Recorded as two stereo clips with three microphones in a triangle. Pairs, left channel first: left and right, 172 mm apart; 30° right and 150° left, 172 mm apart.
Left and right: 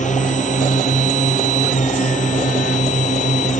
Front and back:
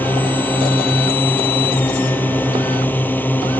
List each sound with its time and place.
0.0 s a drone: 50° left